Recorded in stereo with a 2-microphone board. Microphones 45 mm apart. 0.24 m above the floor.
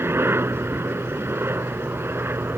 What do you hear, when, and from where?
0.0 s a helicopter: 60° right (ahead or behind)